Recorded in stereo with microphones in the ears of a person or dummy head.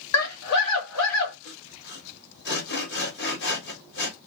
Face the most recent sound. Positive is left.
turn(degrees=65)  # may be behind; listen again after turning